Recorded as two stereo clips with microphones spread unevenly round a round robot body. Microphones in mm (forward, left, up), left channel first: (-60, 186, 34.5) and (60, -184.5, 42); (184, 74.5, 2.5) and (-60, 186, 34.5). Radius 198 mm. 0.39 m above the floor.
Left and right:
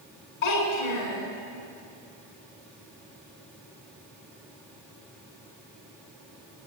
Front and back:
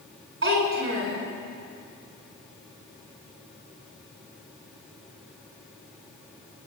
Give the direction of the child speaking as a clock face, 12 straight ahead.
8 o'clock.